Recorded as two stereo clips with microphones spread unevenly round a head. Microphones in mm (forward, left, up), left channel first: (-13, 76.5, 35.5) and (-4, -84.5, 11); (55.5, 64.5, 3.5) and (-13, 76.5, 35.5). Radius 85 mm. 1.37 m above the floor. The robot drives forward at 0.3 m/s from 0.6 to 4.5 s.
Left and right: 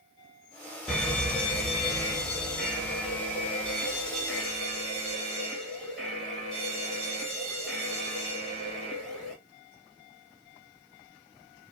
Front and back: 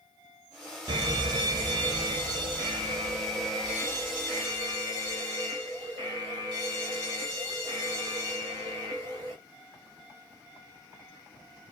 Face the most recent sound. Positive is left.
turn(degrees=180)